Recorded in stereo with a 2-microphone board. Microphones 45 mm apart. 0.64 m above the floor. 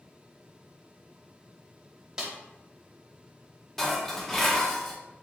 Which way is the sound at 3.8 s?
10° left (ahead or behind).